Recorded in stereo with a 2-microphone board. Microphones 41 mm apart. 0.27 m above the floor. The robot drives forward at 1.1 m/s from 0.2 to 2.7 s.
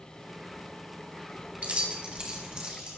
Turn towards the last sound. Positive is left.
turn(degrees=-20)  # may be behind; listen again after turning